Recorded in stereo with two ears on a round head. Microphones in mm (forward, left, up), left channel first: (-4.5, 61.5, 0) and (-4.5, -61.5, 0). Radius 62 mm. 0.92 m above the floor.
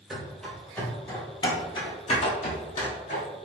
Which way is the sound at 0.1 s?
5° right (ahead or behind).